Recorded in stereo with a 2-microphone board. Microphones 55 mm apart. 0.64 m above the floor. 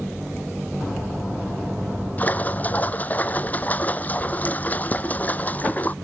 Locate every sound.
2.2 s a splash: 30° left (ahead or behind)